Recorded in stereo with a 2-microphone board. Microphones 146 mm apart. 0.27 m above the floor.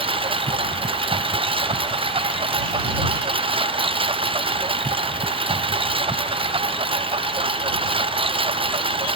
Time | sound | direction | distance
0.0 | a lawn mower | 40° right (ahead or behind) | ?